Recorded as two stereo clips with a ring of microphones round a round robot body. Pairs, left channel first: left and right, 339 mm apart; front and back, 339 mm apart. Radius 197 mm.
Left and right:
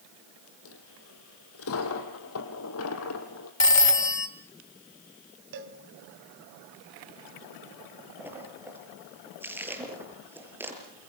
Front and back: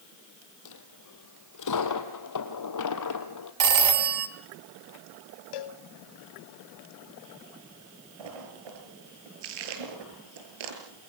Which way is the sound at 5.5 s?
30° right.